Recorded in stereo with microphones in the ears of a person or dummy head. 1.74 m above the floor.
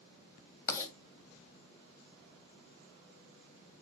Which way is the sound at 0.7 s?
20° left (ahead or behind).